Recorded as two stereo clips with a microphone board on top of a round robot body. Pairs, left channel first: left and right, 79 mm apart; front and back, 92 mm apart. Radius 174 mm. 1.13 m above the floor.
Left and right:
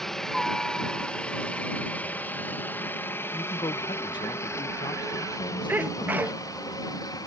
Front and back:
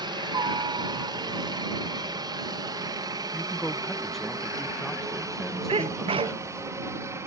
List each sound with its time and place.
0.0 s a helicopter: 175° left; by 7.3 s 125° left
3.3 s a man speaking: 85° left
5.7 s a sneeze: 160° right